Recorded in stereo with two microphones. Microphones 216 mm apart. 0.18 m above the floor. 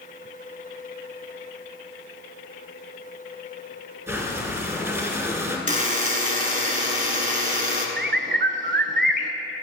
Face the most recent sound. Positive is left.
turn(degrees=-60)  # may be behind; listen again after turning